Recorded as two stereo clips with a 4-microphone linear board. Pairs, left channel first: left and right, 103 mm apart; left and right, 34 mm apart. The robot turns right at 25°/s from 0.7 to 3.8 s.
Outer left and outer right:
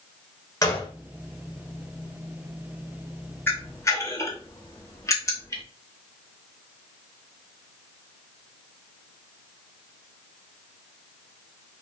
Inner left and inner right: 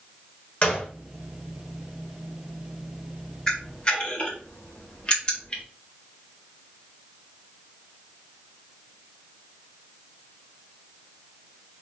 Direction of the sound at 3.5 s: 20° left (ahead or behind).